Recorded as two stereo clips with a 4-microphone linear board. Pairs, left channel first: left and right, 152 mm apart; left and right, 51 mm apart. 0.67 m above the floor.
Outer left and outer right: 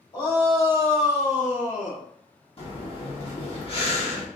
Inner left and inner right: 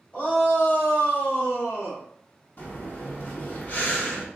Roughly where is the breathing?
Left.